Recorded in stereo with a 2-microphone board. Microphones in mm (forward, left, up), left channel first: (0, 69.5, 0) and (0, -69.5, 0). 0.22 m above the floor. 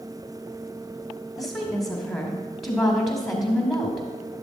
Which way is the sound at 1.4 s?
Centre (ahead or behind).